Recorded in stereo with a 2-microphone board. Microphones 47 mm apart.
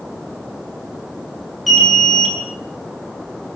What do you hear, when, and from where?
1.7 s an alarm: centre (ahead or behind), 8.5 m